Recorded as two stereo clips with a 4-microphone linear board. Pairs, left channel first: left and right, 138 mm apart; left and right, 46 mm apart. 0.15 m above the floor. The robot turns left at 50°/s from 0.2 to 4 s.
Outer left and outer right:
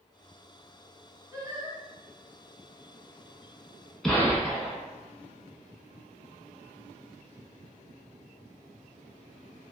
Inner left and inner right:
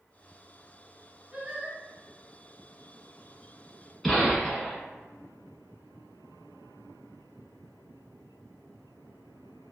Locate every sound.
1.3 s singing: 20° right (ahead or behind), 1.1 m; by 1.8 s 40° right (ahead or behind), 1.1 m
4.0 s a gunshot: 5° left (ahead or behind), 1.0 m